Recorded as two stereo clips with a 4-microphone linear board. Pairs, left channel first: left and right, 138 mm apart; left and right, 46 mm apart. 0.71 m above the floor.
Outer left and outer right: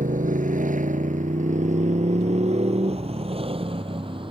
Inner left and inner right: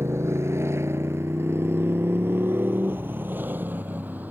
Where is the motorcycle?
80° right; by 4.3 s 40° right (ahead or behind).